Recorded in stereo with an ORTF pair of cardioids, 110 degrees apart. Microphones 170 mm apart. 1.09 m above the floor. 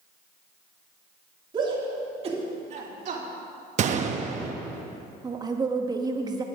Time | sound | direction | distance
1.5 | a shout | 25° right | 2.5 m
3.8 | a gunshot | 45° right | 0.7 m
5.2 | a woman speaking | 25° right | 1.2 m